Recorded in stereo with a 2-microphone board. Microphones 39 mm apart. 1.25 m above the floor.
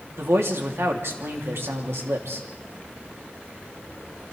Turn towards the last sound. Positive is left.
turn(degrees=-80)